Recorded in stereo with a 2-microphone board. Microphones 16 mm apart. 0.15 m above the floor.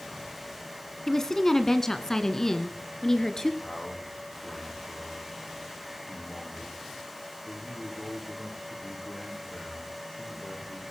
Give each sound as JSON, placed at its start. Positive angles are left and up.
{"t": 1.1, "sound": "a woman speaking", "side_deg": 20, "distance_m": 1.4}
{"t": 3.6, "sound": "a man speaking", "side_deg": 50, "distance_m": 9.5}